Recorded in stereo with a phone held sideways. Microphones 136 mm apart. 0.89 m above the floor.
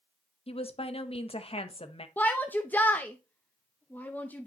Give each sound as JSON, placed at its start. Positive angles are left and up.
{"t": 0.5, "sound": "a woman speaking", "side_deg": 45, "distance_m": 0.9}
{"t": 2.2, "sound": "a shout", "side_deg": 10, "distance_m": 0.6}